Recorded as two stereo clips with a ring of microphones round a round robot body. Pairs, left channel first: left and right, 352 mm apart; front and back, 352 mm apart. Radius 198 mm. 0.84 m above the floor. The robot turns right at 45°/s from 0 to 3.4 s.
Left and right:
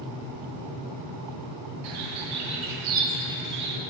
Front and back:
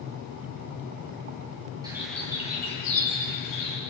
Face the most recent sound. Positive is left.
turn(degrees=-30)